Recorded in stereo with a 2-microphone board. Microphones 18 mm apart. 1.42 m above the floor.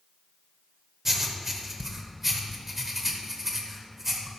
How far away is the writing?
About 1.2 m.